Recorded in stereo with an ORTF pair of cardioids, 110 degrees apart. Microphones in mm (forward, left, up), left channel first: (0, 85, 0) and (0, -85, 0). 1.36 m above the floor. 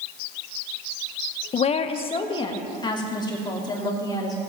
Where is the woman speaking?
40° left, 0.8 m; by 4.4 s 20° left, 3.5 m.